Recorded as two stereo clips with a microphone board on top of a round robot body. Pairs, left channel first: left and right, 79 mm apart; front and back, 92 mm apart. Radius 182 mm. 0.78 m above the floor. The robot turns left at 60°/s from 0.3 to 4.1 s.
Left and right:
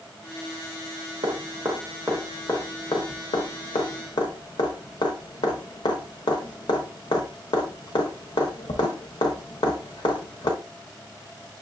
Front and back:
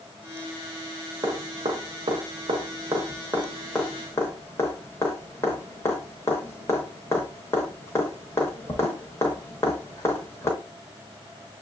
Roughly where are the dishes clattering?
I don't hear dishes clattering.